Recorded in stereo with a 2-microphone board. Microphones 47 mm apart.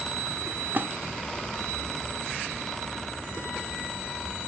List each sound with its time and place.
0.7 s a splash: 45° right (ahead or behind), 1.4 m